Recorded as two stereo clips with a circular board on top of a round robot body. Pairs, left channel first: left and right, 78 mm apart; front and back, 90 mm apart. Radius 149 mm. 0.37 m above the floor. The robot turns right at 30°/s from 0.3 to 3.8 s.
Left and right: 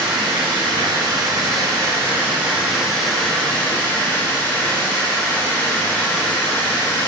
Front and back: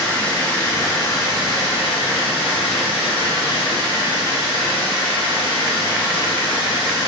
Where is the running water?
80° right, 1.4 m; by 7.1 s 25° left, 1.4 m.